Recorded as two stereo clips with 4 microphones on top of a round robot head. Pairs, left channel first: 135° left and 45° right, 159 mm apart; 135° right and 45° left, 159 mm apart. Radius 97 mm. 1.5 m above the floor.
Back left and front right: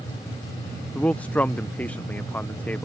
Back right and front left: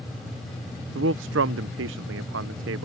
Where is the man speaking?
50° left.